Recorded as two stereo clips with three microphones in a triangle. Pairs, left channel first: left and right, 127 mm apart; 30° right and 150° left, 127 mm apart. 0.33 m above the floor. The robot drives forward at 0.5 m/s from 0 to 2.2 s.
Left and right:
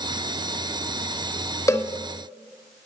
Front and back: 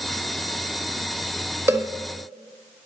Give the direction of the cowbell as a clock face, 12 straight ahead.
8 o'clock.